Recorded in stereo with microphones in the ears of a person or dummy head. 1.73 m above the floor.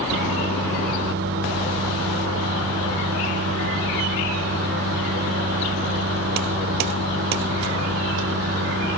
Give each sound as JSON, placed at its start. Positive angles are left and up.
{"t": 0.1, "sound": "a microwave", "side_deg": -50, "distance_m": 0.8}